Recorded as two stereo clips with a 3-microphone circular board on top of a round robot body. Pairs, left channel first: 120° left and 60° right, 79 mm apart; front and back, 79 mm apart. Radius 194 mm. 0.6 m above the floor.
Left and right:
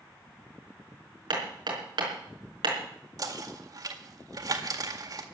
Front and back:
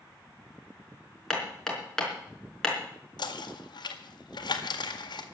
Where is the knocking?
25° right, 1.9 m.